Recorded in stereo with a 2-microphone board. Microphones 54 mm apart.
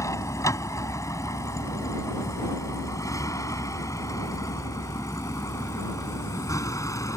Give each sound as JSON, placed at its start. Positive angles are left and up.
{"t": 0.0, "sound": "a vehicle", "side_deg": 75}